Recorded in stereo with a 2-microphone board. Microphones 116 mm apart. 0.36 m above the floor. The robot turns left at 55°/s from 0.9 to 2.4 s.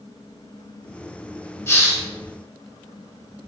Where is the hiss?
25° left (ahead or behind), 1.5 m; by 2.0 s 10° left (ahead or behind), 1.5 m.